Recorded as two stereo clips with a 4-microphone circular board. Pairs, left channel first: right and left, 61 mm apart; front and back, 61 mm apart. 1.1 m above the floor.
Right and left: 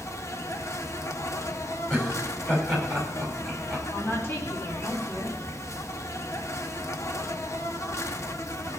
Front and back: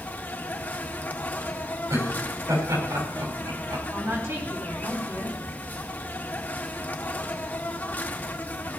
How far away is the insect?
About 0.9 m.